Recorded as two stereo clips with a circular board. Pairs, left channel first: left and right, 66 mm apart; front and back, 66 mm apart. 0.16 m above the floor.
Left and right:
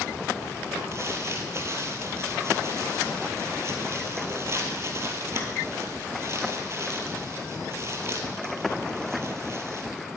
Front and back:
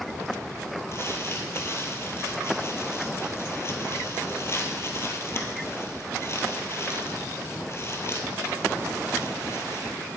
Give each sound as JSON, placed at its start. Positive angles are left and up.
{"t": 0.9, "sound": "crumpling", "azimuth_deg": -45, "distance_m": 1.1}